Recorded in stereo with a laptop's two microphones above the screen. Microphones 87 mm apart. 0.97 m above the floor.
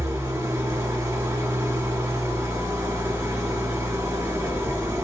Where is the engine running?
30° right (ahead or behind), 0.9 m.